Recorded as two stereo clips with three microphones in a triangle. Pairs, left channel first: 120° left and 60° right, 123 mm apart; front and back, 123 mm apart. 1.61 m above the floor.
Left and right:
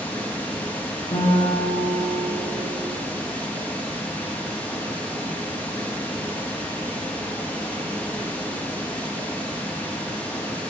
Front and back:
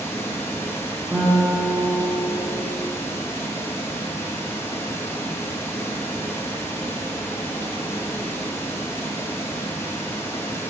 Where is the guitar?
105° left, 3.5 m.